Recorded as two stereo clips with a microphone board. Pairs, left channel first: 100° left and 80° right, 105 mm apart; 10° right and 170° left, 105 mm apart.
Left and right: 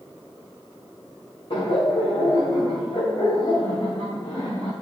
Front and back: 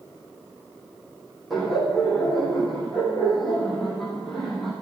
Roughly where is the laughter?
Left.